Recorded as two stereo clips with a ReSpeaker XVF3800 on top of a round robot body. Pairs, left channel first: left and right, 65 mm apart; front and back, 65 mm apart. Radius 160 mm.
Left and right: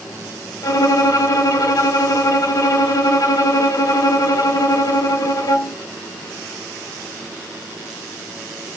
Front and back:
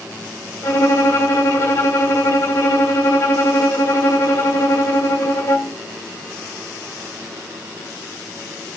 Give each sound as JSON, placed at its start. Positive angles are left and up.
{"t": 0.6, "sound": "a violin", "azimuth_deg": 55, "distance_m": 0.5}